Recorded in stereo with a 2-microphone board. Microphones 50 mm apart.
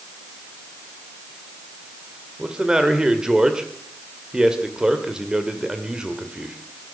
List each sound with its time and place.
2.4 s a man speaking: 15° right (ahead or behind), 1.8 m